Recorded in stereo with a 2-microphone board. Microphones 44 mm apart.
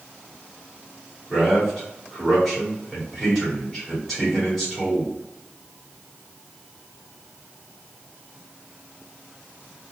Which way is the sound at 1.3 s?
10° right (ahead or behind).